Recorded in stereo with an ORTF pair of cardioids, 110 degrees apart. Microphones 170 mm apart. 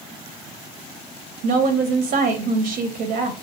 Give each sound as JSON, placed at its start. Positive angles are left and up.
{"t": 1.4, "sound": "a woman speaking", "azimuth_deg": -70, "distance_m": 0.7}